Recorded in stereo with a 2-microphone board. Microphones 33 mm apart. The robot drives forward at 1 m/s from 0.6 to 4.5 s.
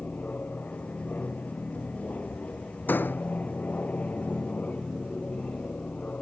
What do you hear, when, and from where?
0.0 s an aircraft: 50° left (ahead or behind); by 6.2 s 45° left (ahead or behind)
2.9 s a door slam: 60° left (ahead or behind); by 3.2 s 65° left (ahead or behind)